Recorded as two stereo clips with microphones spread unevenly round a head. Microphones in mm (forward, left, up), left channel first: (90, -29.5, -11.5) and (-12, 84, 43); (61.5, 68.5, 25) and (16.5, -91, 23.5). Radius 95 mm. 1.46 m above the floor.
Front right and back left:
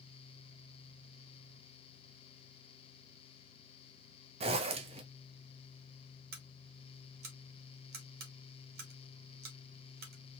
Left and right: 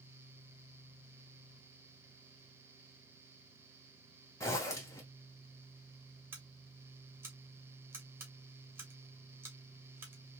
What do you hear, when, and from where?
4.4 s a zipper: 145° left, 0.5 m
6.3 s scissors: 175° left, 1.2 m